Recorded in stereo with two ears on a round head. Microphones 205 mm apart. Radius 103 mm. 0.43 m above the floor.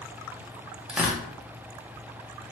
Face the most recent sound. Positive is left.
turn(degrees=-5)  # may be behind; listen again after turning